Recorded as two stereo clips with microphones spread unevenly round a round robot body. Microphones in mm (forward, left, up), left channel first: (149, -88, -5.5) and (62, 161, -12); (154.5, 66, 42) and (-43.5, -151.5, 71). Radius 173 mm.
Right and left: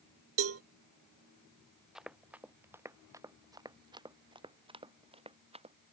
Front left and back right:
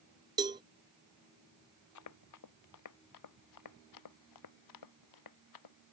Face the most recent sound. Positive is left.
turn(degrees=40)